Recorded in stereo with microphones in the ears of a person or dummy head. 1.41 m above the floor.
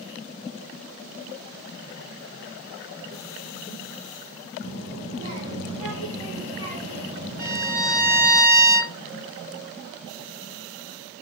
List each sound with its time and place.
4.6 s a child speaking: 30° right (ahead or behind), 1.4 m
7.4 s a violin: 40° right (ahead or behind), 0.7 m